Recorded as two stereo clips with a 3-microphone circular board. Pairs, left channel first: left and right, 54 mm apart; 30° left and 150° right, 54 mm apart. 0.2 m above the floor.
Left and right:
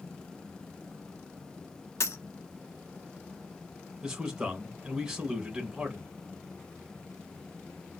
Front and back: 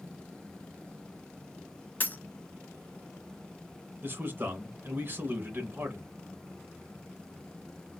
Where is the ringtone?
No ringtone in this recording.